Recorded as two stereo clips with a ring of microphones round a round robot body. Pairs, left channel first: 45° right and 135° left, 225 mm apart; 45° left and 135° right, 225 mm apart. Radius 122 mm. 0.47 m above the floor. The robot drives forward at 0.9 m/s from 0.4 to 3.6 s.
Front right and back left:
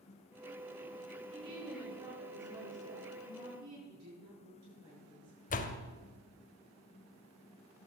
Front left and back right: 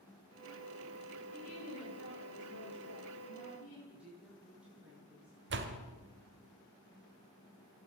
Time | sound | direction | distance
1.3 | a woman speaking | 65° left | 9.5 m
3.9 | a woman speaking | 140° left | 9.5 m
5.5 | a door slam | 100° right | 1.7 m